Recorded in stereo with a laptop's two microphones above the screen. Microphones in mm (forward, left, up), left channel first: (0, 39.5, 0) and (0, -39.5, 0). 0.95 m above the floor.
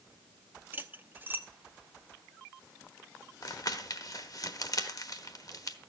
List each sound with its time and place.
0.7 s cutlery clinking: 25° right (ahead or behind), 0.9 m
3.4 s crumpling: 50° left (ahead or behind), 1.1 m